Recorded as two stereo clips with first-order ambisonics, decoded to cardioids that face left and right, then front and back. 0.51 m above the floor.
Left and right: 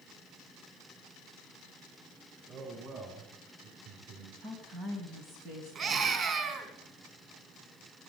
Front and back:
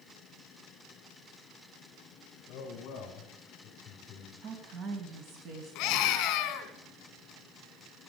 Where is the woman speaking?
145° right, 3 m.